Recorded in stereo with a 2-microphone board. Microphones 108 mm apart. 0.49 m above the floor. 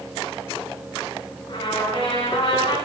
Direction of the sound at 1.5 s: 50° left (ahead or behind).